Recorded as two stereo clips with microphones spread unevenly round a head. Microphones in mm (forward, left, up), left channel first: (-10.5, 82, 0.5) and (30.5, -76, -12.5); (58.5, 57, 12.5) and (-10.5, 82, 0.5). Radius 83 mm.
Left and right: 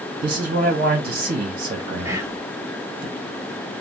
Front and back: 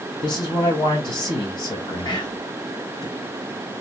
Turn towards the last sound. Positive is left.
turn(degrees=-5)